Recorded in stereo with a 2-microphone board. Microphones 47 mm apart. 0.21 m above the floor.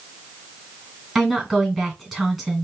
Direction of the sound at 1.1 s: 10° right (ahead or behind).